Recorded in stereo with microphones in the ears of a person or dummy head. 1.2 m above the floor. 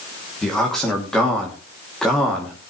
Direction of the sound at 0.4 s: 5° left (ahead or behind).